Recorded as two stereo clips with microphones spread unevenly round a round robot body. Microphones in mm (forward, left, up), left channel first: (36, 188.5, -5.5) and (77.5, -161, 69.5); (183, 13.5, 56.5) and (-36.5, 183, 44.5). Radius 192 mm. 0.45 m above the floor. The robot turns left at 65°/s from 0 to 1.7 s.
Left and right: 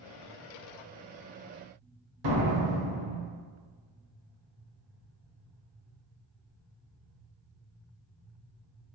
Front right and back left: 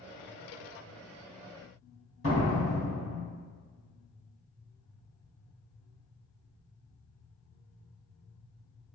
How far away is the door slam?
About 1.3 m.